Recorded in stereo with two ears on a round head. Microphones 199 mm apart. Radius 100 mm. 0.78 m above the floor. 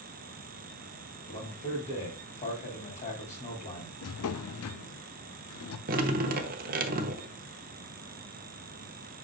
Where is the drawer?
75° left (ahead or behind), 0.7 m.